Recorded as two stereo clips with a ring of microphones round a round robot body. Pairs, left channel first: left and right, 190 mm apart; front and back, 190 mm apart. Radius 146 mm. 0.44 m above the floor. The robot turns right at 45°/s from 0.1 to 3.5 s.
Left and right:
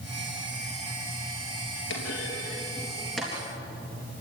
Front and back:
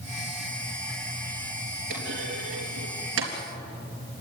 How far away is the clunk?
About 3.5 m.